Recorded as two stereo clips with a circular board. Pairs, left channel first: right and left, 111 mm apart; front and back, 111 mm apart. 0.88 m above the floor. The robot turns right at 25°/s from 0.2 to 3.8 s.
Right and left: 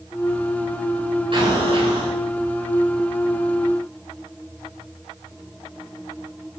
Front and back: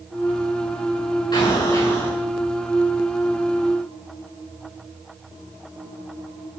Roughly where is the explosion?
Ahead left.